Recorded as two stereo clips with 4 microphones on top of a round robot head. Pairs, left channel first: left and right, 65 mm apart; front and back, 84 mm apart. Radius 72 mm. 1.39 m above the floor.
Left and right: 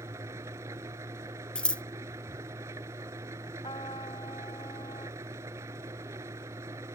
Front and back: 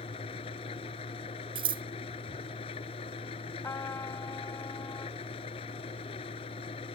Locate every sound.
0.0 s an engine running: 30° right
1.6 s scissors: 165° left
3.6 s a trumpet: 55° left